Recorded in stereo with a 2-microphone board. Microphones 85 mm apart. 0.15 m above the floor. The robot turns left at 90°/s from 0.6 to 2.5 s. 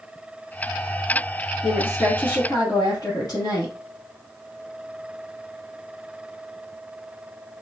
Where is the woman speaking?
170° right, 2.0 m; by 3.7 s 110° left, 2.0 m.